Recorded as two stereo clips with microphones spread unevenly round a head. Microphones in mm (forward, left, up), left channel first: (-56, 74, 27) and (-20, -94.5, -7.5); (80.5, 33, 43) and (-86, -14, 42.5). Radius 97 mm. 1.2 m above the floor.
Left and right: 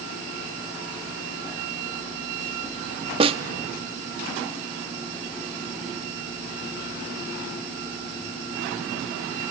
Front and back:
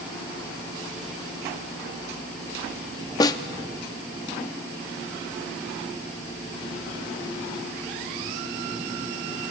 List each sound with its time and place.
3.2 s a snare drum: 30° right, 0.6 m